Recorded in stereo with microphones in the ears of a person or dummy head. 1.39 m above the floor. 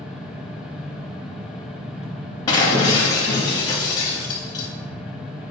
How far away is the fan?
About 0.7 m.